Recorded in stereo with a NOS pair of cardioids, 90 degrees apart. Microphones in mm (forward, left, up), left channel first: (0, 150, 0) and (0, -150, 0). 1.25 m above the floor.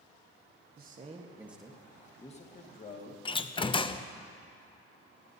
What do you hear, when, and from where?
0.8 s a man speaking: 35° right, 1.3 m; by 3.1 s 35° left, 2 m
3.2 s a door slam: 20° left, 0.5 m